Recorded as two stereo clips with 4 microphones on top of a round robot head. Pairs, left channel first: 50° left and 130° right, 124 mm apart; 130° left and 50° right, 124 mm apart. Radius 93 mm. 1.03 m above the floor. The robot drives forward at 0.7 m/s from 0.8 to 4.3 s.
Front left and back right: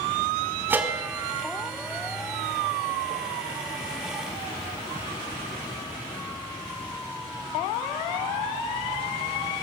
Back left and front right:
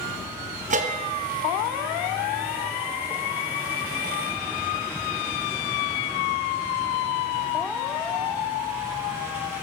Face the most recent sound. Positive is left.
turn(degrees=-140)